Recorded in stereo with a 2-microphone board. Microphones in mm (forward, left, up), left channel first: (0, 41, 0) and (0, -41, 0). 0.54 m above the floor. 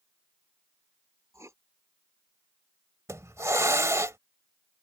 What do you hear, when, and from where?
1.3 s writing: 35° right (ahead or behind)
3.1 s a hiss: 35° right (ahead or behind)